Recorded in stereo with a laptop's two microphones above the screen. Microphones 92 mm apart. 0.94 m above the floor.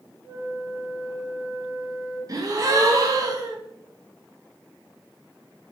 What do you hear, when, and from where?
0.2 s a flute: 70° left (ahead or behind), 1.9 m
2.3 s a gasp: 40° right (ahead or behind), 0.5 m